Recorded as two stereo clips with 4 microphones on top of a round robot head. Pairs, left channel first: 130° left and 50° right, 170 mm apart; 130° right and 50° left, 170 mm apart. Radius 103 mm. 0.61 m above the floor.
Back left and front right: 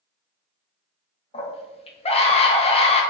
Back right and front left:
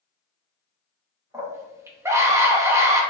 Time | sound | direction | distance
1.3 | a scream | 110° left | 0.7 m